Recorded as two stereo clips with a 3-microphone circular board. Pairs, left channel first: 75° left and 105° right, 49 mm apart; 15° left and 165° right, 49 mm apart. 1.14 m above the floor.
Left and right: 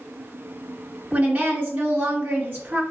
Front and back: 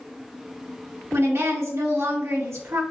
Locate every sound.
1.1 s a woman speaking: 150° right, 2 m